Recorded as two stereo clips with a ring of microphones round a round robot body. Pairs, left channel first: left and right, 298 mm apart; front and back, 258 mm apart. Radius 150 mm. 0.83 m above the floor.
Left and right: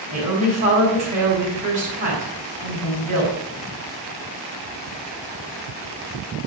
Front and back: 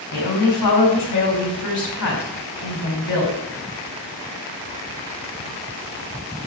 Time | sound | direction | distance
0.1 | a woman speaking | 25° right | 5 m